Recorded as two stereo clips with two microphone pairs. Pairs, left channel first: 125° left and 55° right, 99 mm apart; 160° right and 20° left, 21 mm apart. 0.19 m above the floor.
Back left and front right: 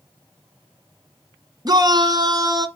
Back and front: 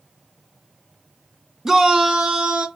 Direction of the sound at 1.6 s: 45° right.